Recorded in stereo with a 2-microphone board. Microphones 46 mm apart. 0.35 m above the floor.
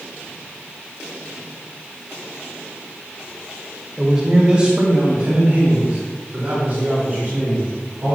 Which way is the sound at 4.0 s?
10° right (ahead or behind).